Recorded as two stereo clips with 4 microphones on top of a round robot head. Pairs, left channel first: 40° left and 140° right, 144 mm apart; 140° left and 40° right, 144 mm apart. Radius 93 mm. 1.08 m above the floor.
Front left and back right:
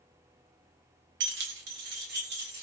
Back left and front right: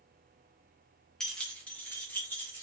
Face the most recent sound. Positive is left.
turn(degrees=-145)